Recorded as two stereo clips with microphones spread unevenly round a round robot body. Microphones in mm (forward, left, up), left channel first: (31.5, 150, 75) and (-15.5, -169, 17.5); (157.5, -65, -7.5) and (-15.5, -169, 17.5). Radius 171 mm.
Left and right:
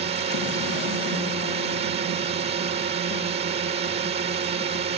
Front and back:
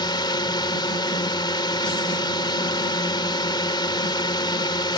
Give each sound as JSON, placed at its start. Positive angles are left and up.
{"t": 0.0, "sound": "a drone", "azimuth_deg": -35}